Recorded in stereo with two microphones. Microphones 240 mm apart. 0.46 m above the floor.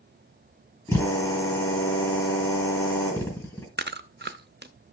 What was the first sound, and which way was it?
A drill, 15° left (ahead or behind).